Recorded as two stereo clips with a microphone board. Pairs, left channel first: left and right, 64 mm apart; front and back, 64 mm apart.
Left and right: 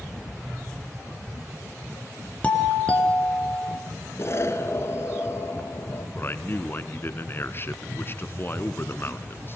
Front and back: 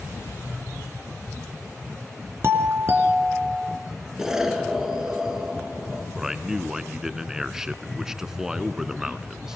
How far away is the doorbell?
About 2.5 m.